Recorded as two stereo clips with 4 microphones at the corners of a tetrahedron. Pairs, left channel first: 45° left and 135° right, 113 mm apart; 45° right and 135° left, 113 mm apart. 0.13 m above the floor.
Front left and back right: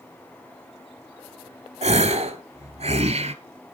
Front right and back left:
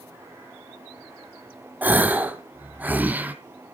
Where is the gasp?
150° right, 0.9 m.